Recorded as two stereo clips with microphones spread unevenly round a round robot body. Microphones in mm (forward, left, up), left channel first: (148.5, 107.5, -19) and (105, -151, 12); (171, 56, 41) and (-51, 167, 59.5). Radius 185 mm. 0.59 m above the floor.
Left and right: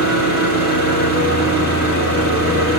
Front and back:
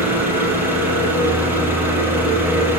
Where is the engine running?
70° left, 5.5 m.